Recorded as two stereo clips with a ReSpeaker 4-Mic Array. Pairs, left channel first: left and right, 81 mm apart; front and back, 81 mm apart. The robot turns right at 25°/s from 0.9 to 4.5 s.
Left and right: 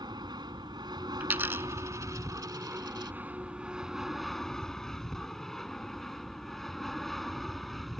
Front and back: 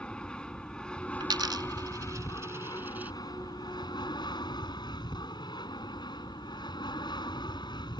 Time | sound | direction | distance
0.0 | an aircraft | 80° right | ?
1.2 | a dropped coin | 160° right | ?